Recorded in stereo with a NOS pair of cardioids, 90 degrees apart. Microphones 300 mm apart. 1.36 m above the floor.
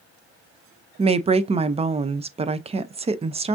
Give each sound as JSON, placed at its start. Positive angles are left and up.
{"t": 1.0, "sound": "a woman speaking", "azimuth_deg": -20, "distance_m": 0.5}